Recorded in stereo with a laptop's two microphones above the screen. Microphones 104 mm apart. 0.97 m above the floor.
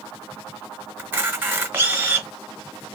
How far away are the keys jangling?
No keys jangling in this recording.